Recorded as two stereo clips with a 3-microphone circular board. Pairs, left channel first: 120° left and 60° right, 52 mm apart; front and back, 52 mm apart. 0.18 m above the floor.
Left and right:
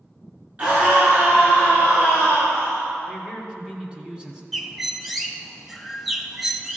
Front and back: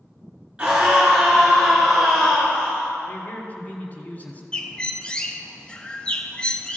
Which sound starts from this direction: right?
A scream, at 0.6 s.